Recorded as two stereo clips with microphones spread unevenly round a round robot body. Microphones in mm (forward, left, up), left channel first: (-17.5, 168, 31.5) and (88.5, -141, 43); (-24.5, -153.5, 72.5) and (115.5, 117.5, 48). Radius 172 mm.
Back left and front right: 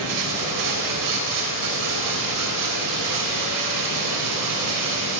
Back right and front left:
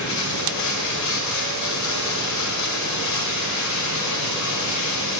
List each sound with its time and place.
0.0 s running water: 95° right, 2 m